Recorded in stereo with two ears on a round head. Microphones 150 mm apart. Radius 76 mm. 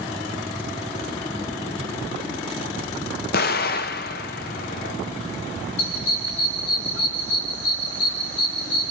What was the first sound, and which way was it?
An explosion, 60° left (ahead or behind).